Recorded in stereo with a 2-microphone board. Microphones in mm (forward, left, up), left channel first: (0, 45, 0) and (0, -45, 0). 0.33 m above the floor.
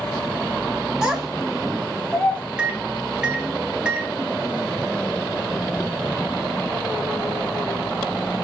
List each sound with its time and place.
1.0 s a child speaking: 5° right (ahead or behind), 1.0 m; by 2.4 s 10° left (ahead or behind), 1.7 m
2.6 s a microwave: 10° right (ahead or behind), 0.6 m